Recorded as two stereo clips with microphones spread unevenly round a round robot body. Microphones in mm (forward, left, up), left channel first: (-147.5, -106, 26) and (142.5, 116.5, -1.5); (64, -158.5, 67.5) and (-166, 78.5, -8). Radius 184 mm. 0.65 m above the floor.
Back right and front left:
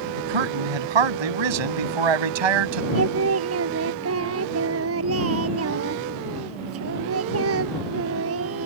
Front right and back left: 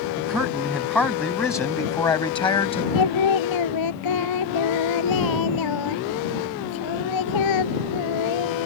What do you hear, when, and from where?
0.2 s a man speaking: 45° left; by 2.9 s 30° left
3.0 s singing: 15° right